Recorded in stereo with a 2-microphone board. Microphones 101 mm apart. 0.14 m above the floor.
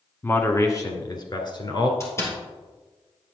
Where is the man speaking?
25° left (ahead or behind), 1.1 m; by 1.9 s 55° left (ahead or behind), 1.8 m.